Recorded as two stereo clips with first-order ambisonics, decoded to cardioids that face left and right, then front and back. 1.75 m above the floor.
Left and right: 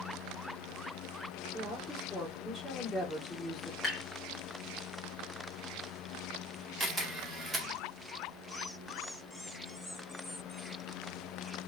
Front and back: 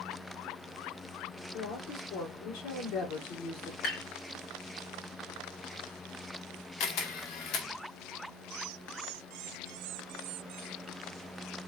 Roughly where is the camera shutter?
Ahead.